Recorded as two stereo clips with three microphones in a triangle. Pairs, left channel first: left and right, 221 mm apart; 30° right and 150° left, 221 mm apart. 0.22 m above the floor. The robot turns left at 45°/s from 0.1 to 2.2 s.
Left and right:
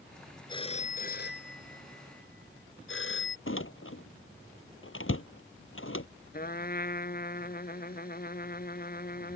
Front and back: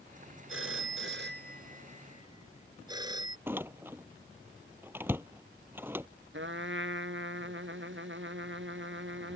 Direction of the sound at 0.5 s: 160° left.